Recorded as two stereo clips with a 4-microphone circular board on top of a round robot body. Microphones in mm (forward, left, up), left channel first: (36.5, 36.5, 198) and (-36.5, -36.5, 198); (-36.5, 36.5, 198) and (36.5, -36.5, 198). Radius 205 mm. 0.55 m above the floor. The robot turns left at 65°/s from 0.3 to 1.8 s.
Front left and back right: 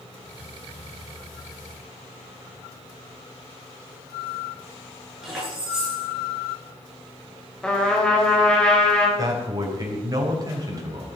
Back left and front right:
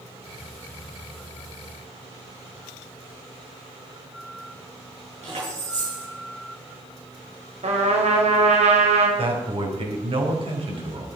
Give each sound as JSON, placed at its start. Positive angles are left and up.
{"t": 5.2, "sound": "keys jangling", "azimuth_deg": -50, "distance_m": 8.0}
{"t": 7.6, "sound": "a trumpet", "azimuth_deg": -35, "distance_m": 4.0}
{"t": 9.2, "sound": "a man speaking", "azimuth_deg": -80, "distance_m": 4.0}